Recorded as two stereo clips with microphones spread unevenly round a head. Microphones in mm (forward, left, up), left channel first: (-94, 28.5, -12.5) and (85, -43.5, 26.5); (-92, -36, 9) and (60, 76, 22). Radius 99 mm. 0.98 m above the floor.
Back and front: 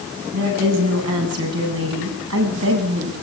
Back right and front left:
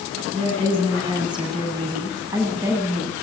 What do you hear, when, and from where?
0.3 s a woman speaking: 30° right, 10 m; by 3.1 s 45° right, 9 m